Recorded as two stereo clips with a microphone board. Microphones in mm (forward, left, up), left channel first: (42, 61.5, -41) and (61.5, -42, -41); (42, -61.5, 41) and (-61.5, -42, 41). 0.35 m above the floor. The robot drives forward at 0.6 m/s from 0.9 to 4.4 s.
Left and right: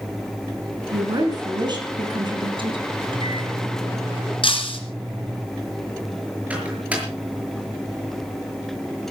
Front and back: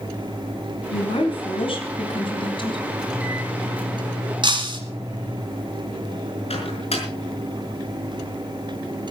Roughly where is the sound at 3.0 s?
Right.